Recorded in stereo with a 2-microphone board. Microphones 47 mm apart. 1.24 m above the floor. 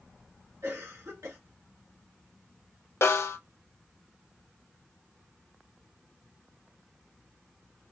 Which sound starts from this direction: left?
A snare drum, at 3.0 s.